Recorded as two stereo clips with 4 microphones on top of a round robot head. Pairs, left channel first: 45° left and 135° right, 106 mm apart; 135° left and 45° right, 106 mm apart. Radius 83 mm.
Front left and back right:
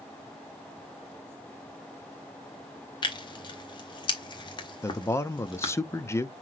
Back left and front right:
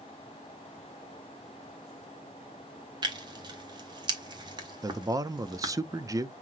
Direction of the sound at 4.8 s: 5° right.